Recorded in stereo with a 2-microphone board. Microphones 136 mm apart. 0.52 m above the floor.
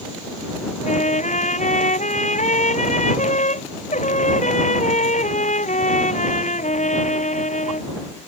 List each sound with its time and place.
0.8 s a trumpet: 65° left (ahead or behind)